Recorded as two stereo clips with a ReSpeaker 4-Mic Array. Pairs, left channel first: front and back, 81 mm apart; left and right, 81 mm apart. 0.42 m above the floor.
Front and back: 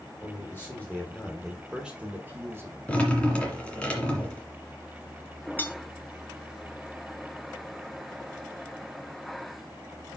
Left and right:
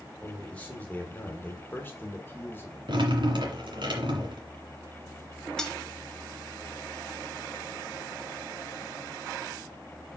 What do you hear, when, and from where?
0.2 s a man speaking: 20° left, 1.5 m; by 2.8 s 140° left, 1.6 m
2.9 s dripping: 75° right, 2.0 m
5.6 s cutlery clinking: 15° left, 0.6 m